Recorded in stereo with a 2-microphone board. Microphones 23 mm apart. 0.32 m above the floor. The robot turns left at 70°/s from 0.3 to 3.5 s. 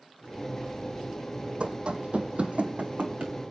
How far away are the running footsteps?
About 1.2 m.